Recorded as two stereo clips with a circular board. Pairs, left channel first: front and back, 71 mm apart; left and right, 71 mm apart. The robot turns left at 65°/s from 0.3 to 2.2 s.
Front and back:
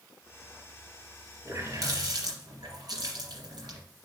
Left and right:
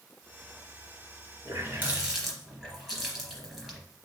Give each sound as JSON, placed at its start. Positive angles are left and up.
{"t": 1.4, "sound": "a running tap", "azimuth_deg": -135, "distance_m": 3.0}